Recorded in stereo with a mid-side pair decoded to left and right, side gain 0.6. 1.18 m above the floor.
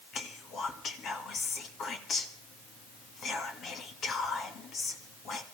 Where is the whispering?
50° left, 2 m.